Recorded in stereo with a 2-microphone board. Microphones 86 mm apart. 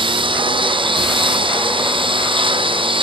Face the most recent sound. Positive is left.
turn(degrees=-80)